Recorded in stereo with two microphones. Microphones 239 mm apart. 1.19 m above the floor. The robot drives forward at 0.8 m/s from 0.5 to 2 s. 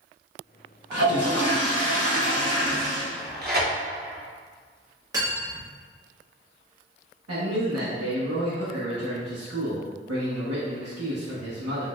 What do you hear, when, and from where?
0.9 s a toilet flushing: 70° left (ahead or behind), 0.8 m; by 3.0 s 50° left (ahead or behind), 1.0 m
3.1 s tearing paper: 40° right (ahead or behind), 0.8 m
5.1 s cutlery clinking: 15° right (ahead or behind), 1.2 m
7.3 s a man speaking: 80° right, 0.9 m